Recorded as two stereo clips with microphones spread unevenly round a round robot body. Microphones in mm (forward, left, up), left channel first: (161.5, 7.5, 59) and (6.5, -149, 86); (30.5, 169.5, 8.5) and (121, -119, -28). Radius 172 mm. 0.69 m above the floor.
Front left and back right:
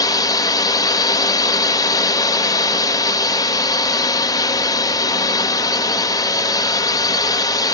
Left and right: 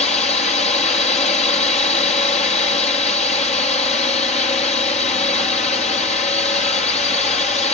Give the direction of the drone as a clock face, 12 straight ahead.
10 o'clock.